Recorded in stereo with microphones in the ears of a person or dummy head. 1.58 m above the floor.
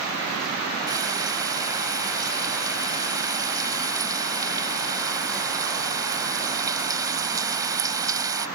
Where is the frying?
15° right (ahead or behind).